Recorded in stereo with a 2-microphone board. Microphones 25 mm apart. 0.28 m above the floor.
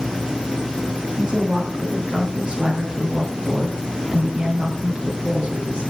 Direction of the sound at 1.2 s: 30° right (ahead or behind).